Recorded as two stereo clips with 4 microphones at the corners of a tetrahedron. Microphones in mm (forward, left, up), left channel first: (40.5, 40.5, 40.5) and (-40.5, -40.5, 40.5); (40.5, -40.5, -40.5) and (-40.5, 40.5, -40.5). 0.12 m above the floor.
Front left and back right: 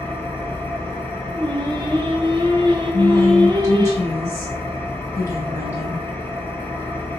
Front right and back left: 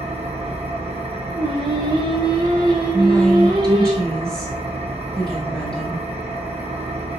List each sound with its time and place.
0.0 s an engine running: 115° left, 0.9 m
1.3 s singing: straight behind, 0.7 m
2.9 s a woman speaking: 30° left, 1.4 m